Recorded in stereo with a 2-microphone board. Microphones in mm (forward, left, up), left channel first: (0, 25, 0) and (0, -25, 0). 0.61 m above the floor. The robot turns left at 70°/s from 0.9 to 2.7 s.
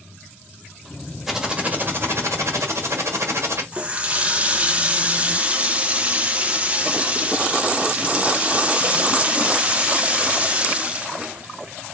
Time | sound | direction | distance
1.3 | typing on a keyboard | 5° right | 1.4 m
3.7 | a running tap | 30° right (ahead or behind) | 0.6 m